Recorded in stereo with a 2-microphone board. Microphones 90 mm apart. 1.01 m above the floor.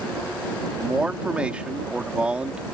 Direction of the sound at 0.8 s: 15° right (ahead or behind).